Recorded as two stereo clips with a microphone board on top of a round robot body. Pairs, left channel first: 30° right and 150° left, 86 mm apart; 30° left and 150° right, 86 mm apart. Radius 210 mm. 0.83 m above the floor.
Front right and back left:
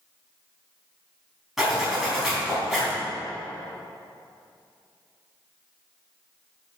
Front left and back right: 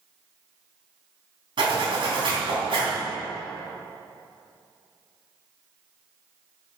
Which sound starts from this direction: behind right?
A zipper, at 1.6 s.